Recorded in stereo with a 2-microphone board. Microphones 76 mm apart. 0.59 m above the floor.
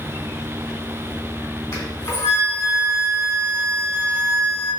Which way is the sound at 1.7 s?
35° left (ahead or behind).